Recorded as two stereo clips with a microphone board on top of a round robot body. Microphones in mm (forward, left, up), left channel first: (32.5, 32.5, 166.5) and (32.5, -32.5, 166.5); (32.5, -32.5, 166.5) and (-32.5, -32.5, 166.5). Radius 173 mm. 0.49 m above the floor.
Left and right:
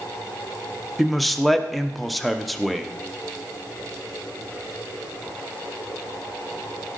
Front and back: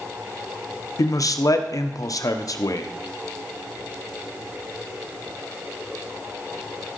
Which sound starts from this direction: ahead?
A man speaking, at 1.0 s.